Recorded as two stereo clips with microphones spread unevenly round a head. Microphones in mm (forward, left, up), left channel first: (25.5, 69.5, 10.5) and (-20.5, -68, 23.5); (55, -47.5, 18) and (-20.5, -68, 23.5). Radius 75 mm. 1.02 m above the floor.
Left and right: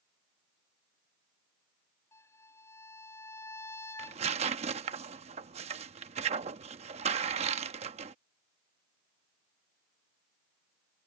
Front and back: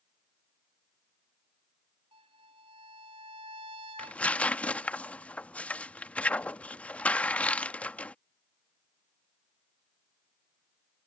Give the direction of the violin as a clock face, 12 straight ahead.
7 o'clock.